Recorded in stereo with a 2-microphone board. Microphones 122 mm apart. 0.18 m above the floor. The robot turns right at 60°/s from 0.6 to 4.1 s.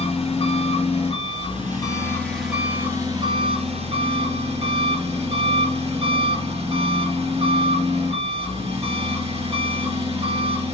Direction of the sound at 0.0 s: 70° left.